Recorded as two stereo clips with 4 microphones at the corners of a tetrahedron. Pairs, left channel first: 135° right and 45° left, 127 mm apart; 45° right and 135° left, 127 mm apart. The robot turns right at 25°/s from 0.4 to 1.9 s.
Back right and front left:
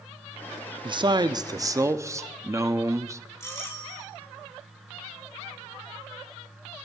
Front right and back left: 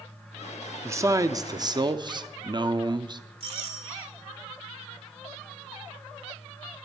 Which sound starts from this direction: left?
A man speaking, at 0.8 s.